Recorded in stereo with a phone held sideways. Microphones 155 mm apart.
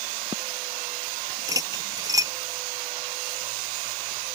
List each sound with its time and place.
1.5 s cutlery clinking: 25° right (ahead or behind)